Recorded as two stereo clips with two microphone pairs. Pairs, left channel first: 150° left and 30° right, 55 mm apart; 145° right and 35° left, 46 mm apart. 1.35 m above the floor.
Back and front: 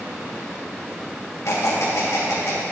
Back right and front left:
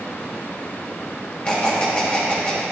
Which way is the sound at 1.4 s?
155° left.